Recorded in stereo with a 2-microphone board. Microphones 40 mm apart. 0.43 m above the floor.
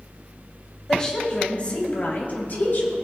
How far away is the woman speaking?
About 2.5 m.